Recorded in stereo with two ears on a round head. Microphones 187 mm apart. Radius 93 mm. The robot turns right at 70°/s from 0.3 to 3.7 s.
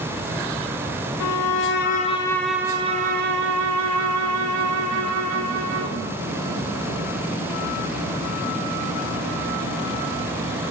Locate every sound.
1.2 s a violin: 90° left, 4 m; by 6.0 s 95° right, 4 m